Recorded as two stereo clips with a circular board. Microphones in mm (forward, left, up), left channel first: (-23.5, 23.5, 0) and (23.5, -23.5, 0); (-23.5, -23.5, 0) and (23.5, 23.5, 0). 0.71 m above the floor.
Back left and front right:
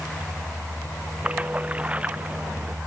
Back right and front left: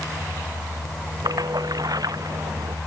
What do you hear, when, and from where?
1.2 s a splash: 25° left